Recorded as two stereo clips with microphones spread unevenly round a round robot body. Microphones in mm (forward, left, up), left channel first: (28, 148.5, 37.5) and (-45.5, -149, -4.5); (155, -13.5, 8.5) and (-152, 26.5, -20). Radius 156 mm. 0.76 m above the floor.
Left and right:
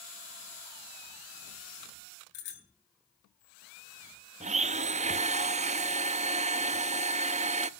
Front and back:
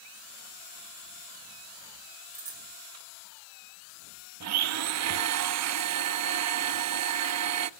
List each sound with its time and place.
2.3 s a bicycle bell: 105° left, 9 m
4.4 s a blender: 165° right, 0.6 m